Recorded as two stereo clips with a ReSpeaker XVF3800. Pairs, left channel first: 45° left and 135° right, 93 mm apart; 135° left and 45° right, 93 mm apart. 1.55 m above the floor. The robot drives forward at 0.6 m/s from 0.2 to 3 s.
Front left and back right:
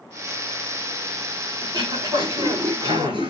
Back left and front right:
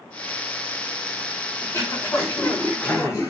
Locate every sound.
1.6 s throat clearing: 165° right, 4.5 m